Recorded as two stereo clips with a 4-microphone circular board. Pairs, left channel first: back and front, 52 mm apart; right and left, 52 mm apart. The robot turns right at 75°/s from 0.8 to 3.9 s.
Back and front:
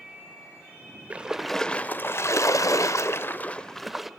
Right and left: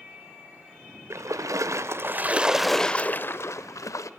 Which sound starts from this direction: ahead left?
A splash, at 1.1 s.